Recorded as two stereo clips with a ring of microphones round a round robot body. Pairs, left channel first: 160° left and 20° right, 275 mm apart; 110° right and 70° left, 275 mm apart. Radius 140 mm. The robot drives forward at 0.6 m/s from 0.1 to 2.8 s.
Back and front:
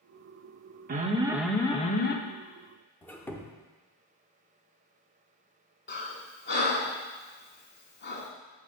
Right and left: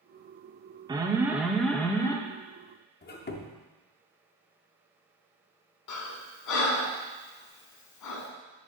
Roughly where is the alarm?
Ahead.